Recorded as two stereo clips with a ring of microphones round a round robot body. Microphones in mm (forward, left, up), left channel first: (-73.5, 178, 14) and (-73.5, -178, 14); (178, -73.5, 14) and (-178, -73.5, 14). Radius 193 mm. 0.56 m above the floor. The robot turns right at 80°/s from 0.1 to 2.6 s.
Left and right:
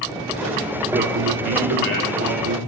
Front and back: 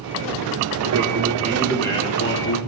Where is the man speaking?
160° right, 1.7 m; by 2.6 s 20° right, 1.7 m.